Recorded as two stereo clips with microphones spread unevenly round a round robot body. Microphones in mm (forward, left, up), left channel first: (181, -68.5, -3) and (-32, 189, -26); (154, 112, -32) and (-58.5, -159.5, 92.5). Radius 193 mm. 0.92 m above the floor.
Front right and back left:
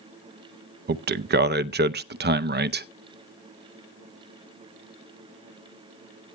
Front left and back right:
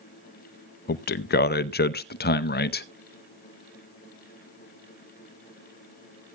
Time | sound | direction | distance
0.9 | a man speaking | 80° left | 0.6 m